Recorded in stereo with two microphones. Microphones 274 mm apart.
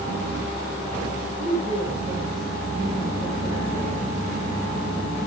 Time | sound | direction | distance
1.4 | a woman speaking | 40° right (ahead or behind) | 7.5 m